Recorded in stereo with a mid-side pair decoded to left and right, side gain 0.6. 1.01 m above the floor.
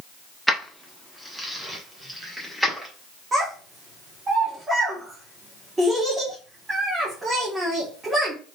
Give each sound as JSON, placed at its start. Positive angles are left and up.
{"t": 0.5, "sound": "keys jangling", "azimuth_deg": 0, "distance_m": 1.0}
{"t": 3.3, "sound": "a child speaking", "azimuth_deg": -20, "distance_m": 1.7}